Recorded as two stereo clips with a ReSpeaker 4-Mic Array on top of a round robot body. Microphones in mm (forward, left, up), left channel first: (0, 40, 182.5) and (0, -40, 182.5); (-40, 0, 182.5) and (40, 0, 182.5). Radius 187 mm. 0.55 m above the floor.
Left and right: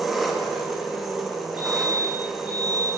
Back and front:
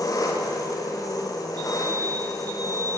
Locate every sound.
0.0 s an engine running: 175° right, 1.2 m
1.6 s a fire alarm: 25° right, 3 m